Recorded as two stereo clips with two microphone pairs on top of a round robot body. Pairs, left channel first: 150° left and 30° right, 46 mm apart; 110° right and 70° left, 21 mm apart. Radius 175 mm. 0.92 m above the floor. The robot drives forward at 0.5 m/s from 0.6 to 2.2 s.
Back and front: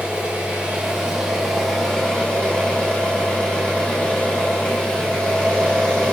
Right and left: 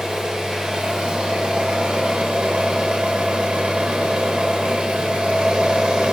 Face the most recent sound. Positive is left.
turn(degrees=80)